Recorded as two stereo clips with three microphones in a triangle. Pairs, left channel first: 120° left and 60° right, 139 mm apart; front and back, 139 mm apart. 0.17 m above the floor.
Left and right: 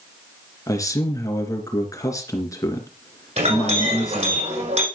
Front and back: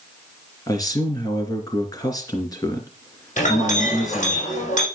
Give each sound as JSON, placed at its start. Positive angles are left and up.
{"t": 0.7, "sound": "a man speaking", "azimuth_deg": 60, "distance_m": 2.5}
{"t": 3.4, "sound": "a clink", "azimuth_deg": -25, "distance_m": 5.5}